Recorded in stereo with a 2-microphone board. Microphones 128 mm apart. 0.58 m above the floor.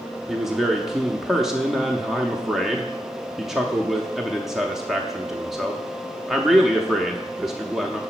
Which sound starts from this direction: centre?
A man speaking, at 0.3 s.